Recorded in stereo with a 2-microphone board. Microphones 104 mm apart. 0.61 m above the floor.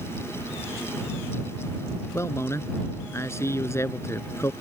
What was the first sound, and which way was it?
A man speaking, 25° left (ahead or behind).